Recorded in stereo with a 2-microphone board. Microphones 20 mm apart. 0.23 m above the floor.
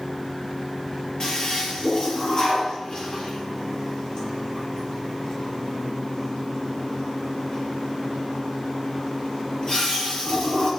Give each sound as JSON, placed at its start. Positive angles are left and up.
{"t": 1.2, "sound": "a toilet flushing", "side_deg": 40, "distance_m": 6.5}